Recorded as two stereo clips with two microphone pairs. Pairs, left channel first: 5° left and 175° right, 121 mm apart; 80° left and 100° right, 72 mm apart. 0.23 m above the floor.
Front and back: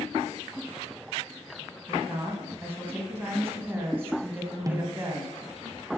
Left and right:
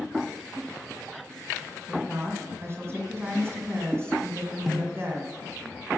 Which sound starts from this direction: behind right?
A woman speaking, at 1.9 s.